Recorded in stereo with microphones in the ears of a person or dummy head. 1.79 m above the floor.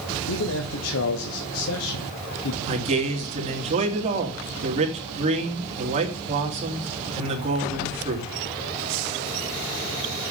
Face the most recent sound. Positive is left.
turn(degrees=-40)  # may be behind; listen again after turning